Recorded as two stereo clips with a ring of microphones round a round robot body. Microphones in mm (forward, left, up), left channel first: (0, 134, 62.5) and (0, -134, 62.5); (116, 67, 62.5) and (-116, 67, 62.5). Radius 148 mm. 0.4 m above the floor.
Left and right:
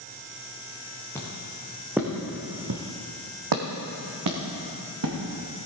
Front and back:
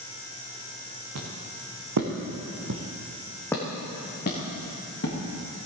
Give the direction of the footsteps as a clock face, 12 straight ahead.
6 o'clock.